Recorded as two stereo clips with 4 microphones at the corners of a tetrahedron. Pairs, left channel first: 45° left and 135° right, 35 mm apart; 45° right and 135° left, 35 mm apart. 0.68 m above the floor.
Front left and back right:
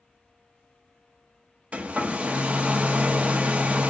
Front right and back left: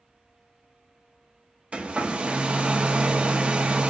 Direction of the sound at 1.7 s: 175° right.